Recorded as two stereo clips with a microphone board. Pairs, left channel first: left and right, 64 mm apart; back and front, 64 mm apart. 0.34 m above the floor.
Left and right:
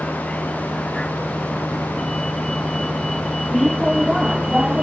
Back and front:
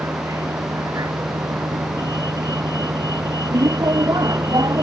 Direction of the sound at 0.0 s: 20° left.